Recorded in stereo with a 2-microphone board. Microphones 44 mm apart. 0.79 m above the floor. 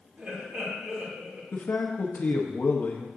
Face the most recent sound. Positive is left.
turn(degrees=45)  # may be behind; listen again after turning